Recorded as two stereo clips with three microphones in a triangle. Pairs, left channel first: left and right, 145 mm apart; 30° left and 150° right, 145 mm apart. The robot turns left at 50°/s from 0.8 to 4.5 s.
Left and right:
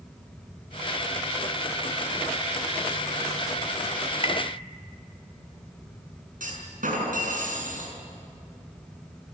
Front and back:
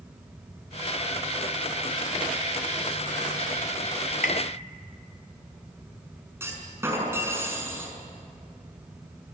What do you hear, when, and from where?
4.2 s tapping: 45° left, 1.6 m; by 4.4 s 35° left, 1.6 m
6.4 s a clunk: 80° right, 6 m